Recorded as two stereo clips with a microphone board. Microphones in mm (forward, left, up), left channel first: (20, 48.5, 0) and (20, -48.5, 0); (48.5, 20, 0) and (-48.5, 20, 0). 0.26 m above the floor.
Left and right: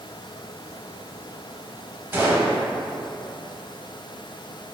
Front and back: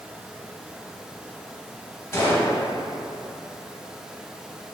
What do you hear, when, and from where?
2.1 s a gunshot: 40° right, 0.7 m